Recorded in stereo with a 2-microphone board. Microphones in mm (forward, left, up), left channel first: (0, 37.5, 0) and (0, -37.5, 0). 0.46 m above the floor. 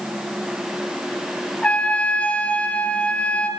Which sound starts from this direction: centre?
A trumpet, at 1.6 s.